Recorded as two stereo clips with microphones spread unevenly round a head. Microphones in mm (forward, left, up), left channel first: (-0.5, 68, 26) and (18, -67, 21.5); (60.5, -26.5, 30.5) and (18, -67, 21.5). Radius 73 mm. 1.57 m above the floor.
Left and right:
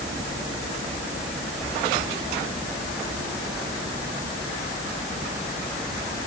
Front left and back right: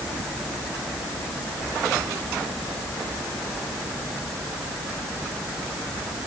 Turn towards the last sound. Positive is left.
No sound to turn to.